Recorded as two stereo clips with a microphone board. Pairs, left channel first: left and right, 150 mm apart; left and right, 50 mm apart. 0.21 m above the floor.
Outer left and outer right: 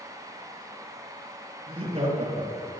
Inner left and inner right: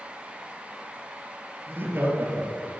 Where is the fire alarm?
I don't hear a fire alarm.